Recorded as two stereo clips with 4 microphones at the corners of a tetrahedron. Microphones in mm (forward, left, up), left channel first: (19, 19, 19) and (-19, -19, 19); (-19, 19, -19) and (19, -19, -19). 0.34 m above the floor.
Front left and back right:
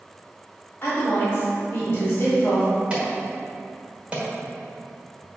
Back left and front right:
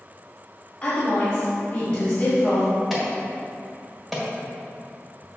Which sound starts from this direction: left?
A woman speaking, at 0.8 s.